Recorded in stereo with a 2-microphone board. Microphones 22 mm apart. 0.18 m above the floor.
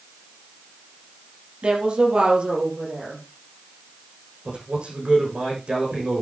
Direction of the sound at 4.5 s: 50° right (ahead or behind).